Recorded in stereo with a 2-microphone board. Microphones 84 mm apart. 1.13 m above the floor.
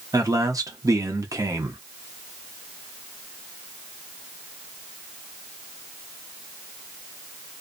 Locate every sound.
0.1 s a man speaking: 40° right (ahead or behind), 0.8 m